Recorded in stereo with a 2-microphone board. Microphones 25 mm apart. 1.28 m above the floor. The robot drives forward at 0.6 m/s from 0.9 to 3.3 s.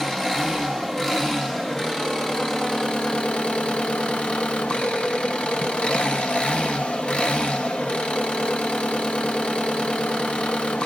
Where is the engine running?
15° left (ahead or behind), 2 m; by 10.9 s 45° left (ahead or behind), 0.9 m.